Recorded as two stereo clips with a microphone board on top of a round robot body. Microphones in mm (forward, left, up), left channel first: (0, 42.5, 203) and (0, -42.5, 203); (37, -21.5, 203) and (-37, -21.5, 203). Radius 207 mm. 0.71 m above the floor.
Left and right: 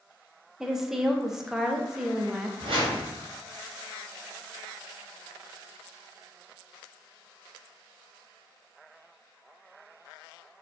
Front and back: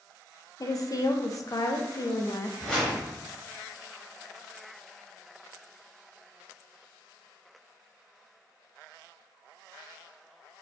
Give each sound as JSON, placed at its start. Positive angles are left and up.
{"t": 0.6, "sound": "a woman speaking", "azimuth_deg": -5, "distance_m": 1.0}
{"t": 2.6, "sound": "a whoosh", "azimuth_deg": -80, "distance_m": 0.9}